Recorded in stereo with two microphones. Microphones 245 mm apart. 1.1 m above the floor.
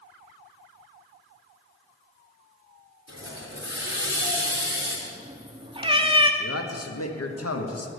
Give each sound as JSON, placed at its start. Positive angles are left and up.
{"t": 3.1, "sound": "a hiss", "side_deg": -50, "distance_m": 3.0}
{"t": 5.1, "sound": "a cat meowing", "side_deg": -20, "distance_m": 0.7}
{"t": 6.4, "sound": "a man speaking", "side_deg": 75, "distance_m": 1.0}